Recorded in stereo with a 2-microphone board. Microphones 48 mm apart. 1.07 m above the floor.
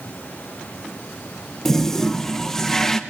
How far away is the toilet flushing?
About 1.0 m.